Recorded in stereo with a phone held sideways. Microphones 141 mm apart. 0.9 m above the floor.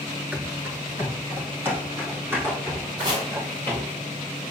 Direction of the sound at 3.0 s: 30° right (ahead or behind).